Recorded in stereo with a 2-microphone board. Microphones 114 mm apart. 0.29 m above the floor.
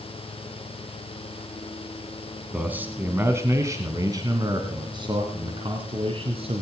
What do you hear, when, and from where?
2.5 s a man speaking: 10° right (ahead or behind), 2 m; by 6.6 s 60° right (ahead or behind), 3 m